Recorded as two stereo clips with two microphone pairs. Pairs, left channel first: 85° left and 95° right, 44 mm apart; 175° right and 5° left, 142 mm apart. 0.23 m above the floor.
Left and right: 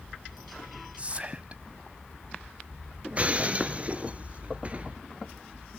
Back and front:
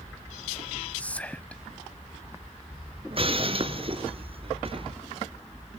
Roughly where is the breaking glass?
Ahead right.